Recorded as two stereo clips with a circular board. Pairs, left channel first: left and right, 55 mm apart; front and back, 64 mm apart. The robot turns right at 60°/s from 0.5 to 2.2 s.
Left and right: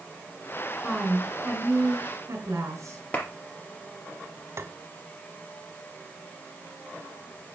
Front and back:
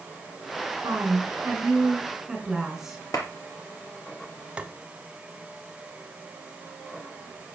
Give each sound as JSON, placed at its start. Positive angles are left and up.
{"t": 0.8, "sound": "a woman speaking", "azimuth_deg": 180, "distance_m": 3.0}
{"t": 3.1, "sound": "a clap", "azimuth_deg": 30, "distance_m": 4.0}
{"t": 4.6, "sound": "tapping", "azimuth_deg": -110, "distance_m": 1.2}